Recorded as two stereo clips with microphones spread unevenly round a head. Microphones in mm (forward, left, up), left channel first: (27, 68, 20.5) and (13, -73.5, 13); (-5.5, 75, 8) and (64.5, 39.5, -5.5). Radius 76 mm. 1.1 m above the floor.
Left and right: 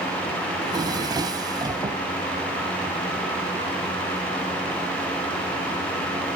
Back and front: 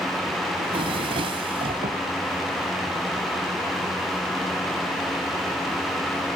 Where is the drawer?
30° right, 2.5 m.